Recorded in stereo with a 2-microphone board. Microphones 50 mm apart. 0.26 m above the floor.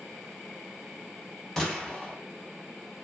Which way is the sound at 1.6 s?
10° left (ahead or behind).